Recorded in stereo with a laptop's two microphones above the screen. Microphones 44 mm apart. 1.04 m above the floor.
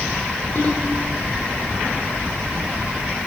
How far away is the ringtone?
About 2.0 m.